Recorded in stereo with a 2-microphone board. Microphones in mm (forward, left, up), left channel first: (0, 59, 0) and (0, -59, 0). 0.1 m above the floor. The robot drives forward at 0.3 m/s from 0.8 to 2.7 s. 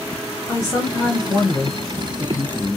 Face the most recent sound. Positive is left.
turn(degrees=25)  # may be behind; listen again after turning